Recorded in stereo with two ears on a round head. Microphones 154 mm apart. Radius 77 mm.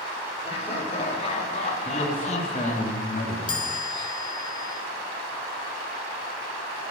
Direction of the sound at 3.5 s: 25° left (ahead or behind).